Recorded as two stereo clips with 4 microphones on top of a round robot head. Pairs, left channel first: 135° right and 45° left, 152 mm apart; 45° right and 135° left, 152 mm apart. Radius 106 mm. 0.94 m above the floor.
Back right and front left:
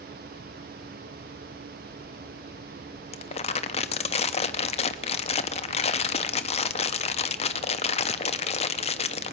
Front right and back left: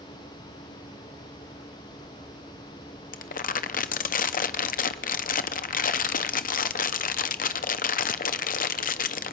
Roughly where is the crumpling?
Right.